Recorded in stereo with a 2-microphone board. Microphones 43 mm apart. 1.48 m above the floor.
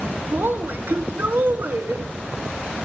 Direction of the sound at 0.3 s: 45° right (ahead or behind).